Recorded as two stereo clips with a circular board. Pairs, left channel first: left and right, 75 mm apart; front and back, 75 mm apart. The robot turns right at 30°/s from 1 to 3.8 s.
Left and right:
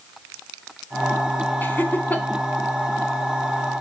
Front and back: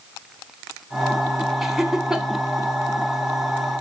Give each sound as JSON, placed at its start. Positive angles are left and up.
{"t": 1.6, "sound": "laughter", "azimuth_deg": 100, "distance_m": 0.8}